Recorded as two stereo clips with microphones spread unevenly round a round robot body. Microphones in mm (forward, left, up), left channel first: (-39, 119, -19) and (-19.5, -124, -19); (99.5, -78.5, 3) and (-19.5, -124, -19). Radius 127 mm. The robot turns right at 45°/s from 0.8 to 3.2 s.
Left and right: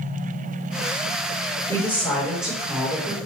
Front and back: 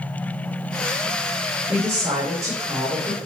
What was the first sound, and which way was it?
A woman speaking, 160° left.